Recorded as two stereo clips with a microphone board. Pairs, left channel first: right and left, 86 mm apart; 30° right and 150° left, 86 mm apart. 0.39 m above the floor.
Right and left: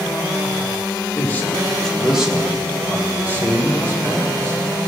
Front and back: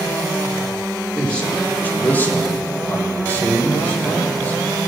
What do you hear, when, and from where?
1.1 s a man speaking: 100° right, 1.3 m; by 4.6 s 35° left, 3.5 m